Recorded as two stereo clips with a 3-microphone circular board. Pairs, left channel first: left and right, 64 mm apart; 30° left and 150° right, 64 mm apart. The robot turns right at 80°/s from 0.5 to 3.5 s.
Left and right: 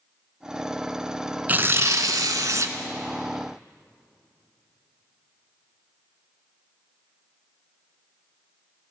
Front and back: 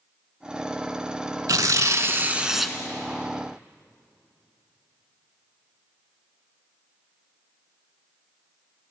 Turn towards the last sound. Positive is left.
turn(degrees=10)